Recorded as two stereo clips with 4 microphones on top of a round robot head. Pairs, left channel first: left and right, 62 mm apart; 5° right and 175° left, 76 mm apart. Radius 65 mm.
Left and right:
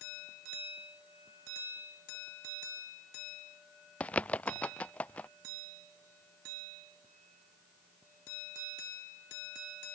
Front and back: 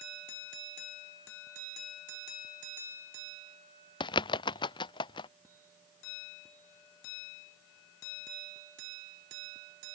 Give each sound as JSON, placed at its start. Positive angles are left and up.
{"t": 4.0, "sound": "a bird", "azimuth_deg": 15}